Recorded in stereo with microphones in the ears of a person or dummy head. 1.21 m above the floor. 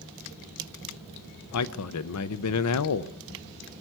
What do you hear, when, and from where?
1.5 s a man speaking: 80° left, 0.7 m